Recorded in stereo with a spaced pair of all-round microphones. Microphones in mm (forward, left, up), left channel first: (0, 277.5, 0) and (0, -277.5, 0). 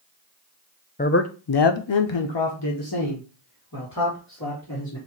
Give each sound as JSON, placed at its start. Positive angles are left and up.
{"t": 1.0, "sound": "a man speaking", "side_deg": 15, "distance_m": 0.6}